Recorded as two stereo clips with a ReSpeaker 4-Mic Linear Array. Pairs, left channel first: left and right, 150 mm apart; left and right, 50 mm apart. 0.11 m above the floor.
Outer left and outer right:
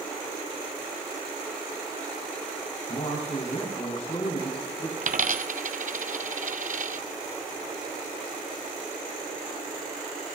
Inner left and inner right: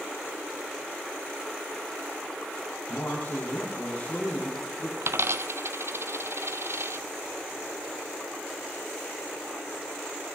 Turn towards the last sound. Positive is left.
turn(degrees=-60)  # may be behind; listen again after turning